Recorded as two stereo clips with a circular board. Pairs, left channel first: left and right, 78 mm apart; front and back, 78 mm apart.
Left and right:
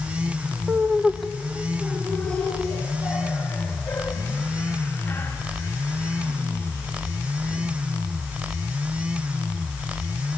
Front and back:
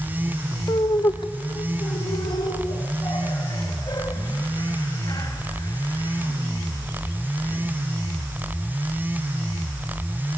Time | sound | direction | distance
0.7 | laughter | 20° right | 0.8 m